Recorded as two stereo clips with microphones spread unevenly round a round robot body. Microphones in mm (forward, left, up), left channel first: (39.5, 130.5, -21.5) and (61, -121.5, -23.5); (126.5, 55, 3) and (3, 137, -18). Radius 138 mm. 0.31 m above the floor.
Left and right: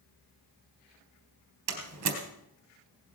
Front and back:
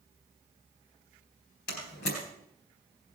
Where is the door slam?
70° right, 3.5 m.